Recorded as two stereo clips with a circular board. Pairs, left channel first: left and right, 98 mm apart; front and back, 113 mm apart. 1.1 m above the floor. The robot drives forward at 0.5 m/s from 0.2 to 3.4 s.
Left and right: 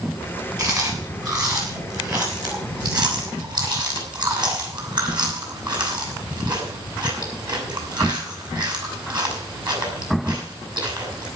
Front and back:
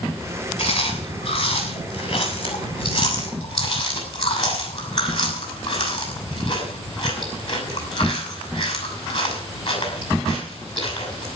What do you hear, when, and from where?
0.6 s chewing: 40° right, 7 m; by 11.3 s 45° right, 6 m